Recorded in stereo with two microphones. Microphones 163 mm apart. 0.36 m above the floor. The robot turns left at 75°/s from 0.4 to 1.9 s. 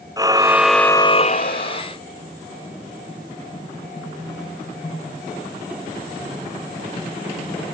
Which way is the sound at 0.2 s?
160° right.